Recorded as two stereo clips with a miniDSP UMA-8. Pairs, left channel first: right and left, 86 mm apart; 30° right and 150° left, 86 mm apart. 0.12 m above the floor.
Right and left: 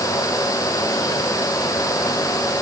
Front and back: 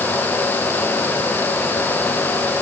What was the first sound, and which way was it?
Only background noise.